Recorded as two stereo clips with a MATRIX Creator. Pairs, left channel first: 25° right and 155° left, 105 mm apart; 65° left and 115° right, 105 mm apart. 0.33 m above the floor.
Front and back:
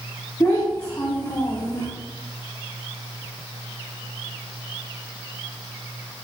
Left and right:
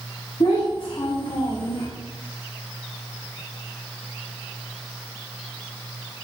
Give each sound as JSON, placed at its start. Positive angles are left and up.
{"t": 0.4, "sound": "a child speaking", "azimuth_deg": 40, "distance_m": 1.8}